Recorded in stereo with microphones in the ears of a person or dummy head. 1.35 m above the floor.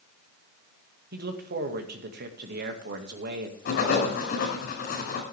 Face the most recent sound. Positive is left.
turn(degrees=55)  # may be behind; listen again after turning